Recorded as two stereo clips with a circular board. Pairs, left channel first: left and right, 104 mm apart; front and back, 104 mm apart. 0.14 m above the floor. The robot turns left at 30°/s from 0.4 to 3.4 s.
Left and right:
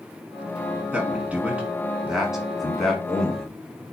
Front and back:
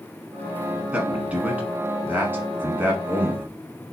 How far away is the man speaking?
About 1.1 m.